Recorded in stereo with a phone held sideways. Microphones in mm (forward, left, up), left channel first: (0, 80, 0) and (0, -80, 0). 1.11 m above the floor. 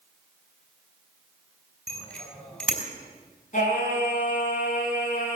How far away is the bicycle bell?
About 5.5 m.